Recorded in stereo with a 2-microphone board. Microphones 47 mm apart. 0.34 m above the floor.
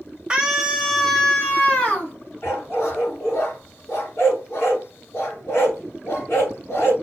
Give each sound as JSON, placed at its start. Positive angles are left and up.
{"t": 0.3, "sound": "a scream", "side_deg": -20, "distance_m": 1.0}
{"t": 2.4, "sound": "a dog barking", "side_deg": 80, "distance_m": 1.7}